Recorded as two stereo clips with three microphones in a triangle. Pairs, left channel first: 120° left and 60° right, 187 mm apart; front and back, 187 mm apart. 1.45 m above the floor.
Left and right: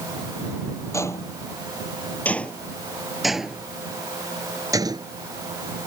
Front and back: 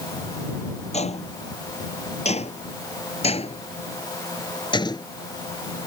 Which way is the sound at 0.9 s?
50° left.